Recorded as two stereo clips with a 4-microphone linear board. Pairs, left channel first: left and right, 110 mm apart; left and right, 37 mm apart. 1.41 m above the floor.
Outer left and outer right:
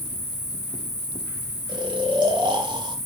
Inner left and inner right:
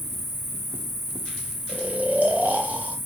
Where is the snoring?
45° right (ahead or behind), 0.6 m.